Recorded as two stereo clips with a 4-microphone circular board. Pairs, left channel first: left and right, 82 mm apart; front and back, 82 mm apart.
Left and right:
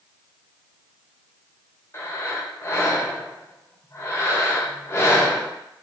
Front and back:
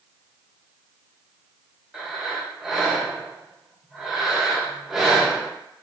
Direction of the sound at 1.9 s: 100° left.